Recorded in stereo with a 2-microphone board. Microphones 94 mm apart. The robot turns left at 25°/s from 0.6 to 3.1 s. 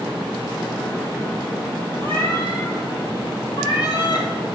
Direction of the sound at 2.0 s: 20° left (ahead or behind).